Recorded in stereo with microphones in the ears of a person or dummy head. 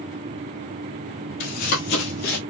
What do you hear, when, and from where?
1.4 s running footsteps: 45° left (ahead or behind), 1.9 m; by 2.4 s 40° left (ahead or behind), 1.7 m